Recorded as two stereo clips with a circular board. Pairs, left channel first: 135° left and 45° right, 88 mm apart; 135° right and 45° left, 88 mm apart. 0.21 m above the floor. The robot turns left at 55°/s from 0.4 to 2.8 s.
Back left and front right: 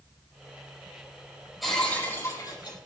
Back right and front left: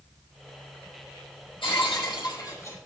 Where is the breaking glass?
130° right, 4.5 m; by 2.8 s 165° left, 4.5 m.